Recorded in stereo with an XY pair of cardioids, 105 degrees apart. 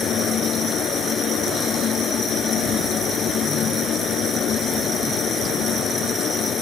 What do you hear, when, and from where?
0.0 s a fan: 60° left